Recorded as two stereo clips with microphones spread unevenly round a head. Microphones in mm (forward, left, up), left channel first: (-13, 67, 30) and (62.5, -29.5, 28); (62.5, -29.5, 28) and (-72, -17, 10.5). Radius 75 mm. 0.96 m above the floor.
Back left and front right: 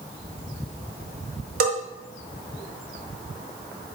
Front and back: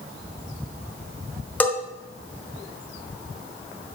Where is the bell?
85° right, 0.7 m.